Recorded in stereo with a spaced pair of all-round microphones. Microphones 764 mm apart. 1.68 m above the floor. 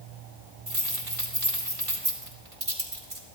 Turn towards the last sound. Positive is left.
turn(degrees=-45)  # may be behind; listen again after turning